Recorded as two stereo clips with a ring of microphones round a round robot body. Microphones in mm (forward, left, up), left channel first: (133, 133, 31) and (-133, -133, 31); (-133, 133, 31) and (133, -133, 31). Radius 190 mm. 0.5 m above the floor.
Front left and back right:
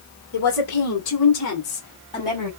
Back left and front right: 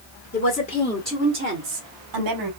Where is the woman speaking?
80° left, 2 m; by 2.5 s 40° right, 2.5 m.